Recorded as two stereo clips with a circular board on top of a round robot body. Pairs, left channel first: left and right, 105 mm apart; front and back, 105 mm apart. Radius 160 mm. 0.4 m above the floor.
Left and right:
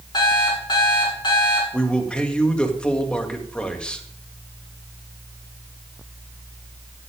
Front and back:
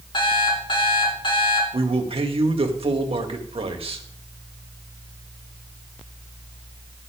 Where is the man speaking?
170° left, 2 m.